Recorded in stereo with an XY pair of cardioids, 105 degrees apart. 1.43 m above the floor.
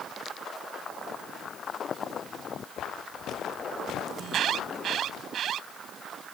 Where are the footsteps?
65° left; by 5.2 s 75° left.